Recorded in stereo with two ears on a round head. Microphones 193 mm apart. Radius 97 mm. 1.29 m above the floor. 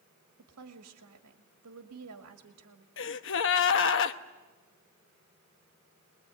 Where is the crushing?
No crushing in this recording.